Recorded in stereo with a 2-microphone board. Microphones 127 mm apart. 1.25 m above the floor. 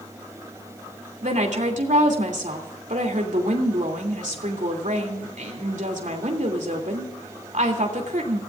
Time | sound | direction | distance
1.2 | a woman speaking | 70° right (ahead or behind) | 2.5 m